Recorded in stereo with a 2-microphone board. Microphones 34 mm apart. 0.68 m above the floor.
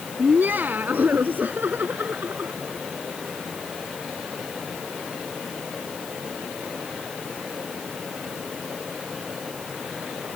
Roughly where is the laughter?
Right.